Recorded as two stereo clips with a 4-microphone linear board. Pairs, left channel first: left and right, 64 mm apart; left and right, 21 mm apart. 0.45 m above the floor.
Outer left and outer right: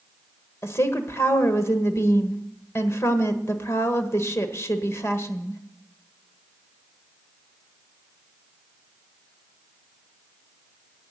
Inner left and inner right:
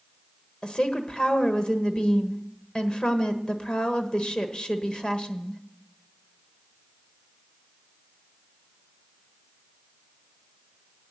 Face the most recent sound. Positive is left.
turn(degrees=45)  # may be behind; listen again after turning